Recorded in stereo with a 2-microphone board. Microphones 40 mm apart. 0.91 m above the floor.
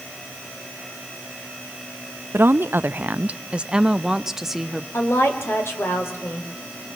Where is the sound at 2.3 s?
60° right (ahead or behind), 0.6 m; by 4.8 s 5° right (ahead or behind), 1.4 m.